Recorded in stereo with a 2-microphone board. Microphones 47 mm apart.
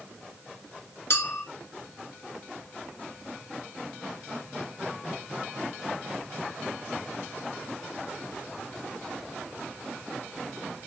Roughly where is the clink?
Left.